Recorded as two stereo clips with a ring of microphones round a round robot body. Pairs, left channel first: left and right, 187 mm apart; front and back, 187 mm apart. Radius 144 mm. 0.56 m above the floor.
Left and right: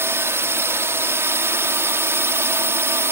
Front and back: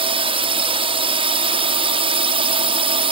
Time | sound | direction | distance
0.0 | a drone | 155° right | ?